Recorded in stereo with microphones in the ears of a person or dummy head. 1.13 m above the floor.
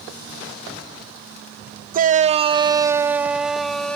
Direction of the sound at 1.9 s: 45° right (ahead or behind).